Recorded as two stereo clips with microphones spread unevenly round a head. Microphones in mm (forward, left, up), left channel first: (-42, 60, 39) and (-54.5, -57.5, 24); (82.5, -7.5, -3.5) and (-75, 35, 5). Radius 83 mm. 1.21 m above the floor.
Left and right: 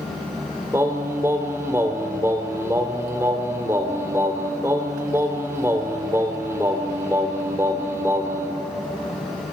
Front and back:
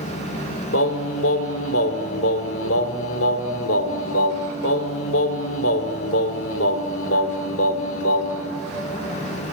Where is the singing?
20° right, 2 m.